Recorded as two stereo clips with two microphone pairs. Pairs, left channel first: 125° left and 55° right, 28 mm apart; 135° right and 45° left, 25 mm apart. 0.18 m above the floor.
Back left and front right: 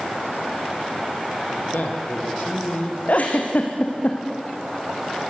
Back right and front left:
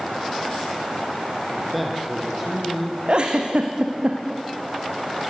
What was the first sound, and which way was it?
A man speaking, 135° left.